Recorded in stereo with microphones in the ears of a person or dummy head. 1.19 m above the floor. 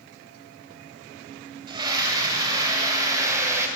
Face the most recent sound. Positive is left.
turn(degrees=-20)  # may be behind; listen again after turning